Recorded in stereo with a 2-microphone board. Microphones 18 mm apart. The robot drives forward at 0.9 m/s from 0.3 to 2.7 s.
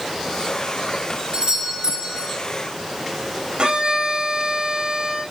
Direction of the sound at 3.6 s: 75° right (ahead or behind).